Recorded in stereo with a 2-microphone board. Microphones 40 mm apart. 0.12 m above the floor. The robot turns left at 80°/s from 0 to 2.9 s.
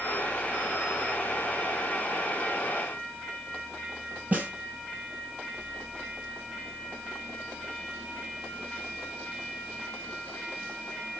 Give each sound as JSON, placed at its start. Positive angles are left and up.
{"t": 4.3, "sound": "a snare drum", "side_deg": -35, "distance_m": 2.5}